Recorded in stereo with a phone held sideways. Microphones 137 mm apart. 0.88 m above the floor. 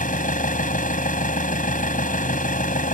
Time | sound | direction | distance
0.0 | an engine running | 80° left | ?